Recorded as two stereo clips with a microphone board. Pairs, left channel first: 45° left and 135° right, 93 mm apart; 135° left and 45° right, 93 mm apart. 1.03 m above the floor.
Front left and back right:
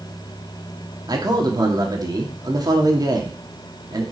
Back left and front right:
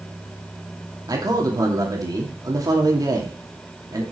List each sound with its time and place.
1.1 s a man speaking: 90° right, 2.5 m